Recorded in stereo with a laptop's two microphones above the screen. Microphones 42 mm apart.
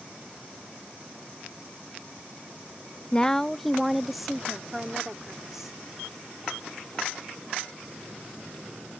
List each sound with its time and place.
3.1 s a woman speaking: 25° left (ahead or behind); by 5.8 s 10° right (ahead or behind)